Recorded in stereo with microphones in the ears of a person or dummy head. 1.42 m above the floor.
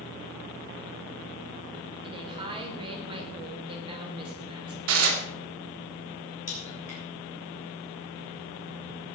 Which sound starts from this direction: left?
A crack, at 6.5 s.